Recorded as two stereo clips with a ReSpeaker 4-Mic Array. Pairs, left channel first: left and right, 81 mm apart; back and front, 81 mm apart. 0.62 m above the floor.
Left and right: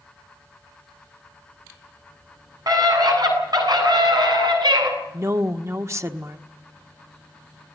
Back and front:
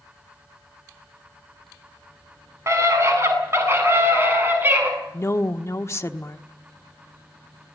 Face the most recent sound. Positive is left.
turn(degrees=-135)